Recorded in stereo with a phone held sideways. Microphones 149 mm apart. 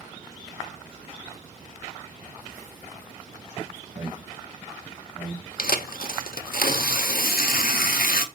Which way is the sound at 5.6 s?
80° left.